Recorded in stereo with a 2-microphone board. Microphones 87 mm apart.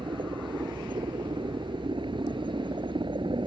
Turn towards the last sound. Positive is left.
turn(degrees=-65)  # may be behind; listen again after turning